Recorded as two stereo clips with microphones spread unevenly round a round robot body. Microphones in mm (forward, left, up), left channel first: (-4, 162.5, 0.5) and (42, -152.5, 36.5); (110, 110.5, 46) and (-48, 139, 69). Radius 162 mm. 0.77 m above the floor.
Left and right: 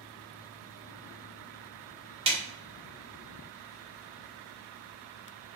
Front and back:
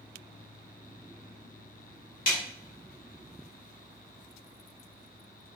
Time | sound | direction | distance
2.3 | a snare drum | 25° right | 0.5 m